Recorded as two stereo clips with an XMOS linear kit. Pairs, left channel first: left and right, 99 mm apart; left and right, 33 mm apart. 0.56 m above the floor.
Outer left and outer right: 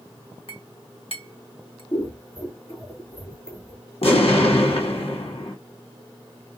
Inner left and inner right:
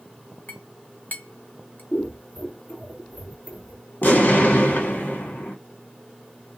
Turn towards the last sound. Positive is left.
turn(degrees=90)